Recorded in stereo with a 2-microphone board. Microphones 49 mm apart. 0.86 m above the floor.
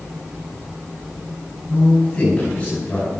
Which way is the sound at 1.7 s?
25° left (ahead or behind).